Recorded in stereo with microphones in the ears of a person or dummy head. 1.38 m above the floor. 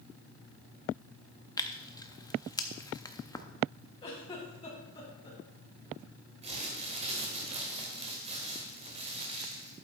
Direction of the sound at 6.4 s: 30° right (ahead or behind).